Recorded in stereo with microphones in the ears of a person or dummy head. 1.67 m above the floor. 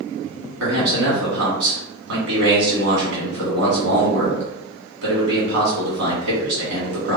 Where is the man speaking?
80° right, 1.5 m.